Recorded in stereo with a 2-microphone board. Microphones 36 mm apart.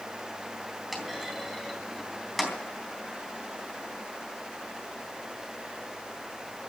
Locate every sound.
0.9 s a clunk: centre (ahead or behind), 3.5 m